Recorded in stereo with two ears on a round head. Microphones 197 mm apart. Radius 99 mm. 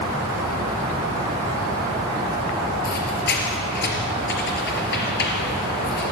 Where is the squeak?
45° left (ahead or behind), 4 m.